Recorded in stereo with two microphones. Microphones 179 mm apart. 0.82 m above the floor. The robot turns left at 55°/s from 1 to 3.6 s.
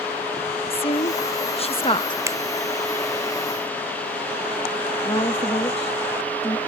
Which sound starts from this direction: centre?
A finger snap, at 2.3 s.